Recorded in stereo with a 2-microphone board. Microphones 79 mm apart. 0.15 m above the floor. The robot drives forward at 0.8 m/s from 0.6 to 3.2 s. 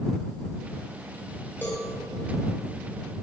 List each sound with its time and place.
1.6 s a cowbell: 30° left (ahead or behind), 3.5 m